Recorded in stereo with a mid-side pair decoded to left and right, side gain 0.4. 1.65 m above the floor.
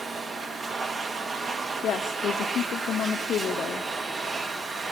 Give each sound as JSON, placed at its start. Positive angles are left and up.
{"t": 0.0, "sound": "a machine running", "azimuth_deg": -45, "distance_m": 2.0}
{"t": 1.8, "sound": "a woman speaking", "azimuth_deg": 70, "distance_m": 0.7}